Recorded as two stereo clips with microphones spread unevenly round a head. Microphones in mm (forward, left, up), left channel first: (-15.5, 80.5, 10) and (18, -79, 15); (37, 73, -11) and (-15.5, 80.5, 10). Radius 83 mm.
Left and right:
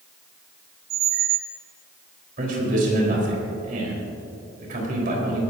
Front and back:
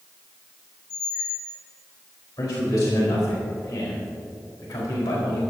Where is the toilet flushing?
No toilet flushing in this recording.